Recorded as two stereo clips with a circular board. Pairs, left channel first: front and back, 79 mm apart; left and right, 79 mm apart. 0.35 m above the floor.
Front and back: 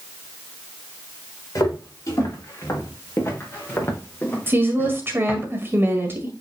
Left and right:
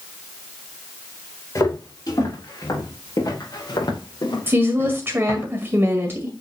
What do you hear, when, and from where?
1.6 s footsteps: 45° left, 5 m; by 5.5 s 75° left, 3.5 m
4.5 s a woman speaking: 135° right, 1.8 m